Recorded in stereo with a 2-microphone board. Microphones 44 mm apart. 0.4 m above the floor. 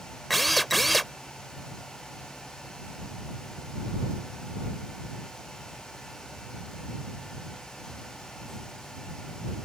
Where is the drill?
Centre (ahead or behind).